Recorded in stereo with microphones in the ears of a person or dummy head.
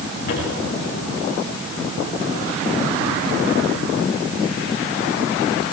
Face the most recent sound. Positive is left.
turn(degrees=60)  # may be behind; listen again after turning